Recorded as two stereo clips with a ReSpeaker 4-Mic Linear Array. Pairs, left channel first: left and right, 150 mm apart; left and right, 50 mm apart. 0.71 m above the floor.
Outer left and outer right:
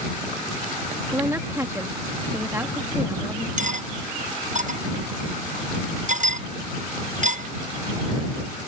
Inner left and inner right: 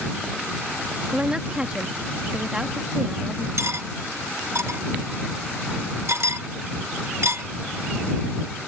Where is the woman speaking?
20° right (ahead or behind).